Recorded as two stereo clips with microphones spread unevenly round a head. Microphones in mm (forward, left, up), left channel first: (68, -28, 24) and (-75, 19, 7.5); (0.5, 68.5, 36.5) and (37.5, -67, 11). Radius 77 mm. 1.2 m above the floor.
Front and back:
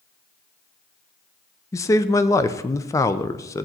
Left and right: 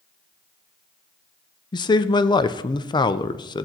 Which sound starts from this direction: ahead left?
A man speaking, at 1.7 s.